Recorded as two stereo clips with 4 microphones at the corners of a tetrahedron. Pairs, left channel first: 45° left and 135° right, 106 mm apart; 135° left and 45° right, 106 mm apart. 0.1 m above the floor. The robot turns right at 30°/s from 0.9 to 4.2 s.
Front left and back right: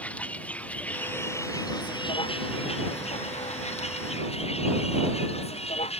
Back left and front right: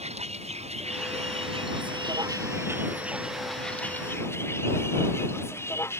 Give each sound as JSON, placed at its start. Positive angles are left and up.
{"t": 0.0, "sound": "a vehicle", "azimuth_deg": -30}